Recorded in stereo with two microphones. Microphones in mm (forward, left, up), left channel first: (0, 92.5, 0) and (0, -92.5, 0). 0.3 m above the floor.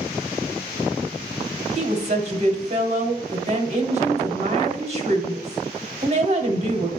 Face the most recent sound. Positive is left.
turn(degrees=-40)  # may be behind; listen again after turning